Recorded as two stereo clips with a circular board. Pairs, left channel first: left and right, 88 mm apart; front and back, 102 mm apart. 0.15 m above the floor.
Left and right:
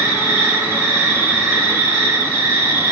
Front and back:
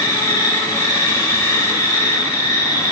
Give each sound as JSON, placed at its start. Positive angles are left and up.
{"t": 0.0, "sound": "an insect", "azimuth_deg": -35, "distance_m": 1.5}